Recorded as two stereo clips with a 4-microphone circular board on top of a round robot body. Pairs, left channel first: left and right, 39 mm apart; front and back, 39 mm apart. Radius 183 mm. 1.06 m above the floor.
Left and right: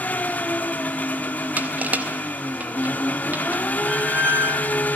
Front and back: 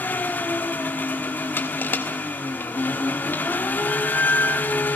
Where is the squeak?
55° right, 1.2 m.